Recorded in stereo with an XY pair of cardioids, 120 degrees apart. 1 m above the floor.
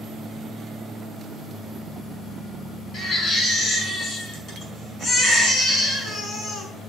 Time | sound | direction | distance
2.9 | a baby crying | 40° left | 5.5 m